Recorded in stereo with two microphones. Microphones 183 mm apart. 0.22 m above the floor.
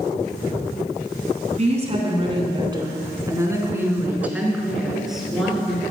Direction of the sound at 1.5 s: 45° right (ahead or behind).